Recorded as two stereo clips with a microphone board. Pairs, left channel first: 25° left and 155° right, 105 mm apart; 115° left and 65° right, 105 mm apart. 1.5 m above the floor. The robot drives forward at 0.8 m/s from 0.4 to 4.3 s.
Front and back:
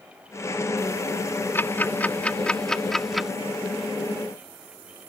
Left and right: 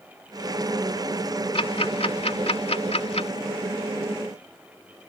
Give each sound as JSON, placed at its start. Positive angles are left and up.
{"t": 1.6, "sound": "ticking", "azimuth_deg": 90}